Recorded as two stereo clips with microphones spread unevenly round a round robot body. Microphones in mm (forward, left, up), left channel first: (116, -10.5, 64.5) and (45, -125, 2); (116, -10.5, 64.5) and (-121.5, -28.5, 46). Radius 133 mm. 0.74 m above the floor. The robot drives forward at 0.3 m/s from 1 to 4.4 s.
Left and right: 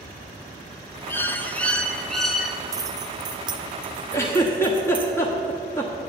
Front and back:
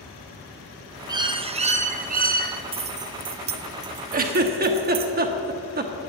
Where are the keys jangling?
120° right, 0.6 m; by 5.1 s 155° right, 0.9 m.